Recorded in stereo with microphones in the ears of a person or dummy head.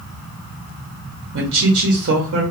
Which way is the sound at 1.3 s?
55° right (ahead or behind).